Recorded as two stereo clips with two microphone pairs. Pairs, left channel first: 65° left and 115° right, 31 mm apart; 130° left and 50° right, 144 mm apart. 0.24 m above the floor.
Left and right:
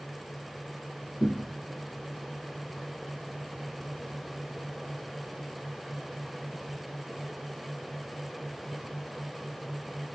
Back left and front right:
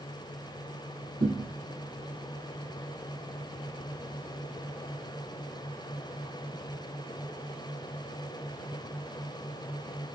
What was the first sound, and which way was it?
A thud, 40° right.